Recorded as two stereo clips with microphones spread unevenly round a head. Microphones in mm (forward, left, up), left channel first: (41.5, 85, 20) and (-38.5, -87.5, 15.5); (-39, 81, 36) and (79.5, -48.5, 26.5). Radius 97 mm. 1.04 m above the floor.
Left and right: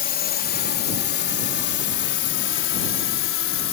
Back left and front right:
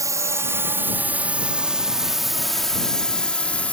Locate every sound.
0.0 s a drone: 20° left; by 3.7 s 50° left